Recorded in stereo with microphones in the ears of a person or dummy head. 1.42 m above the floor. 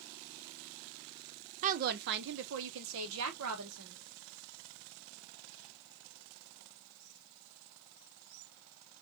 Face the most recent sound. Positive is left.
turn(degrees=-85)